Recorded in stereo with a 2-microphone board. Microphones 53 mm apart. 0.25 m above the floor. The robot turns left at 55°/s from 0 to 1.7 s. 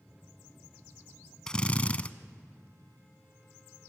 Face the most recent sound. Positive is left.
turn(degrees=25)  # may be behind; listen again after turning